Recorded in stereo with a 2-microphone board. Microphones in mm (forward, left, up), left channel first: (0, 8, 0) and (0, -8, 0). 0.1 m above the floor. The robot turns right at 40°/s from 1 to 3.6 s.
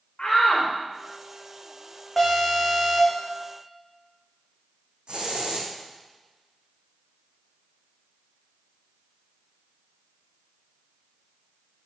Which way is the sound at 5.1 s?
65° right (ahead or behind).